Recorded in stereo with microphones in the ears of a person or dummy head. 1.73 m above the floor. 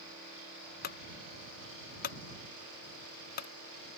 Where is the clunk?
50° left (ahead or behind).